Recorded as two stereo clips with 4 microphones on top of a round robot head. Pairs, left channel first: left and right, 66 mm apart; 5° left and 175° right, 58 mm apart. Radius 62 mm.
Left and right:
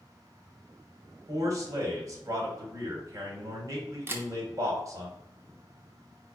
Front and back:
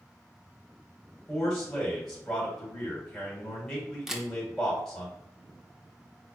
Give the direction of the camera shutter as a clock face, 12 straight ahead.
3 o'clock.